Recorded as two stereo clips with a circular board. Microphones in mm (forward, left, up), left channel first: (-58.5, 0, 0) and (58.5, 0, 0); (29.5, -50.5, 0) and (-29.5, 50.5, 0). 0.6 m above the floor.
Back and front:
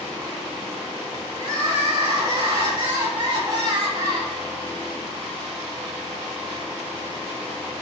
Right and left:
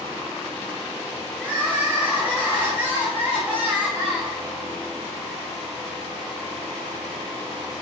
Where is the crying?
45° left, 1.5 m.